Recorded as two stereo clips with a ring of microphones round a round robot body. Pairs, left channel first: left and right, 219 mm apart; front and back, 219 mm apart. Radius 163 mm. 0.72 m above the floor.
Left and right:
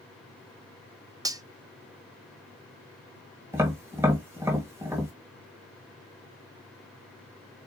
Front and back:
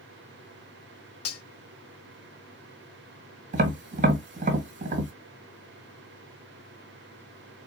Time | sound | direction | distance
1.2 | cutlery clinking | 15° right | 0.6 m
3.5 | tapping | 160° right | 1.2 m